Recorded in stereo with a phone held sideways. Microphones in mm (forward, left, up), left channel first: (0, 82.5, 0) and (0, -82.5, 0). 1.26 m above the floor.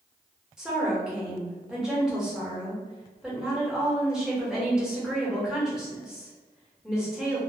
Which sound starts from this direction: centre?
A woman speaking, at 0.6 s.